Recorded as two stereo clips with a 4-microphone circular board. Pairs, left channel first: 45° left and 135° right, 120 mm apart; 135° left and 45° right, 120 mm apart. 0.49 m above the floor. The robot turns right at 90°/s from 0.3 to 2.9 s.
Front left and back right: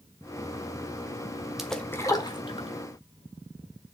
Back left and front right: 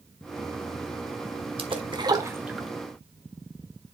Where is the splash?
50° right, 1.1 m; by 2.7 s 50° left, 1.1 m.